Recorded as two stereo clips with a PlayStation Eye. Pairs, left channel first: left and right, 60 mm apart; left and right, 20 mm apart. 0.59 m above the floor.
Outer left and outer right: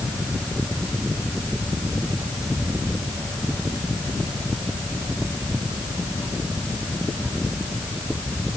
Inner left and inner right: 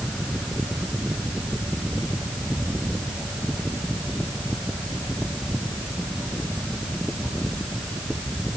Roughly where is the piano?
I don't hear a piano.